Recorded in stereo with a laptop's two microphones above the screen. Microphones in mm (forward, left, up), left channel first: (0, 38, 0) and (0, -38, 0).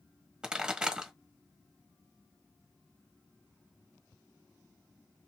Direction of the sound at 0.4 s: 10° right (ahead or behind).